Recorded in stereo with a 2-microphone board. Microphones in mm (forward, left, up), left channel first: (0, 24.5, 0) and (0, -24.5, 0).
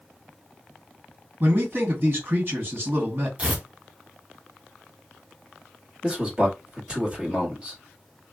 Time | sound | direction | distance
1.4 | a man speaking | 45° right (ahead or behind) | 2.0 m
3.4 | tearing paper | 25° right (ahead or behind) | 0.7 m
6.0 | a man speaking | 20° right (ahead or behind) | 1.4 m